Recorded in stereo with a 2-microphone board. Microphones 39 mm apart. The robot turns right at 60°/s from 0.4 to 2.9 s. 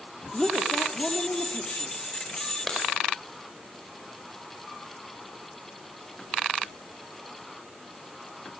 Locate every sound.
0.3 s a woman speaking: 5° left, 2.5 m; by 1.9 s 95° left, 2.5 m
2.7 s a clap: 10° left (ahead or behind), 5.5 m; by 2.8 s centre (ahead or behind), 5.5 m